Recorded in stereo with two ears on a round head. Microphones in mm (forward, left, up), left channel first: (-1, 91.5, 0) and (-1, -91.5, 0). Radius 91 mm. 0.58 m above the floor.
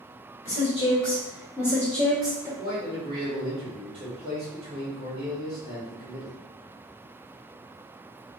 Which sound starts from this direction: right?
A man speaking, at 2.6 s.